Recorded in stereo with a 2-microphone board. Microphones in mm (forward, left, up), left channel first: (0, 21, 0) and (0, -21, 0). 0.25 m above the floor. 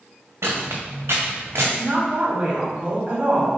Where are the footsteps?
80° right, 1.3 m; by 1.7 s 70° right (ahead or behind), 1.8 m.